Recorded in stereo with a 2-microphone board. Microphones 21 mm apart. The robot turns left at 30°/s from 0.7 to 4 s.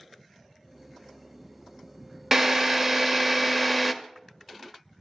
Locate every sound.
2.3 s a drill: 25° right (ahead or behind), 0.5 m; by 3.9 s 5° right (ahead or behind), 0.5 m